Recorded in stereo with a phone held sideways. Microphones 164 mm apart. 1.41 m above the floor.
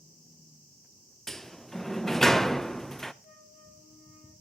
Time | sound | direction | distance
1.3 | a sliding door | 5° left (ahead or behind) | 0.6 m
3.2 | a flute | 50° left (ahead or behind) | 8 m